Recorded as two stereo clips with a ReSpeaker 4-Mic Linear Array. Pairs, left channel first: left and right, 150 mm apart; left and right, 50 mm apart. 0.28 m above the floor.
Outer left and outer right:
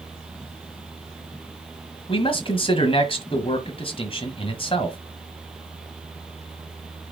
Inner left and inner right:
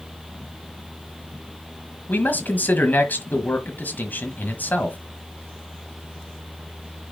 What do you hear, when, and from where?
2.1 s a man speaking: 40° left (ahead or behind), 1.5 m